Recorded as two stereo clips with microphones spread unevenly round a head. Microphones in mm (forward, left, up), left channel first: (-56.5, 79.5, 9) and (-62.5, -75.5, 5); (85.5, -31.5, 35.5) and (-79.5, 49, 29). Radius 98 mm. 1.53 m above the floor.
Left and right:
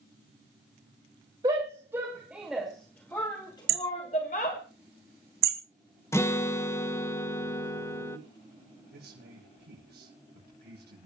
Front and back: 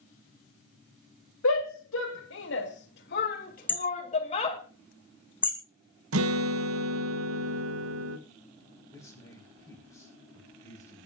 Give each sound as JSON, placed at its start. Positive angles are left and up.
{"t": 1.4, "sound": "a shout", "azimuth_deg": -20, "distance_m": 2.5}
{"t": 3.7, "sound": "hammering", "azimuth_deg": -105, "distance_m": 2.0}
{"t": 6.1, "sound": "a guitar", "azimuth_deg": 160, "distance_m": 1.8}
{"t": 8.9, "sound": "a man speaking", "azimuth_deg": -100, "distance_m": 6.5}